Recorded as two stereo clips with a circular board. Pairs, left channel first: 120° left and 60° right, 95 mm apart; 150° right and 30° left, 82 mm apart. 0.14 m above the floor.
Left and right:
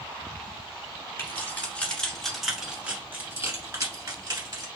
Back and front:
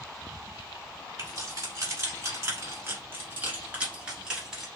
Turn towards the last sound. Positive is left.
turn(degrees=-50)